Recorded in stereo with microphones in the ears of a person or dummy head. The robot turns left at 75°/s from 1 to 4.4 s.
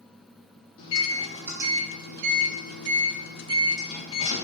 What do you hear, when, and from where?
0.8 s a microwave: 30° left, 0.5 m; by 4.4 s 135° left, 0.5 m